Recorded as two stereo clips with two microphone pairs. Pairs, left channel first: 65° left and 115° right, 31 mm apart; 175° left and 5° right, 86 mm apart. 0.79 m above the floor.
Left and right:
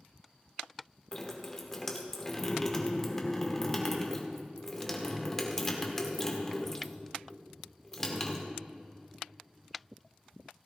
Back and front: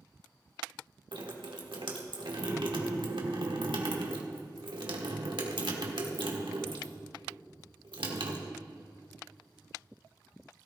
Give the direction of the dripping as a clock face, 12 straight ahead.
12 o'clock.